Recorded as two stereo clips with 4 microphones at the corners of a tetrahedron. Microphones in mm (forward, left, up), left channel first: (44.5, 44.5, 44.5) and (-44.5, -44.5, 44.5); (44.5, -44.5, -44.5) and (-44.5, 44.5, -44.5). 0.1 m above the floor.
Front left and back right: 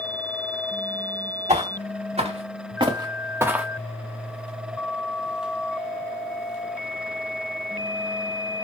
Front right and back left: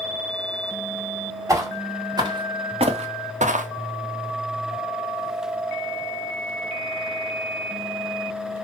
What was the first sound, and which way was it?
Footsteps, 160° right.